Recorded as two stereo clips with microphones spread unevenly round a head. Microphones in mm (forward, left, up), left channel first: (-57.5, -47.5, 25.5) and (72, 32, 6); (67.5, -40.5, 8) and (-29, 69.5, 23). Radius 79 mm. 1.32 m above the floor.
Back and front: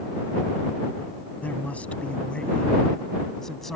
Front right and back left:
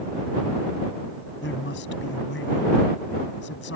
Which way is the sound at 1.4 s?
70° right.